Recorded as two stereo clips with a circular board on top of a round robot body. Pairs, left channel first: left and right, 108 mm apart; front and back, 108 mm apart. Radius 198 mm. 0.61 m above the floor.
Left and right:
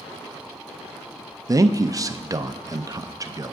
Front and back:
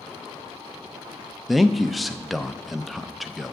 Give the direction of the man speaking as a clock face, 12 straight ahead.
3 o'clock.